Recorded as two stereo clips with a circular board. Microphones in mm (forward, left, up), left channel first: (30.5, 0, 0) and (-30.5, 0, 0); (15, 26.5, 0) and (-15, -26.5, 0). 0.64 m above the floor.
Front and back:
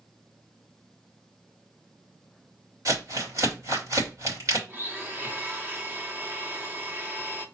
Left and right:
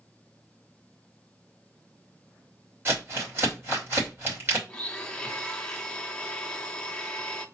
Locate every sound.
2.9 s crumpling: 170° right, 2.5 m
4.7 s a blender: 130° left, 0.7 m